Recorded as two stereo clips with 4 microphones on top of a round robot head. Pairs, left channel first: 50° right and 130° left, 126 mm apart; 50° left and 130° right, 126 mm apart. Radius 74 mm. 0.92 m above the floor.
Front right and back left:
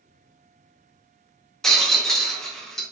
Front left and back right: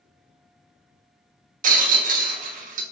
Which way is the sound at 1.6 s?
135° right.